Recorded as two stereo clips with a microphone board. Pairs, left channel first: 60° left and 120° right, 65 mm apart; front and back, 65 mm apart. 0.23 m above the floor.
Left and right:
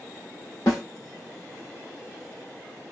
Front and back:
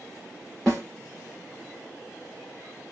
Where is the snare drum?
90° left, 4 m.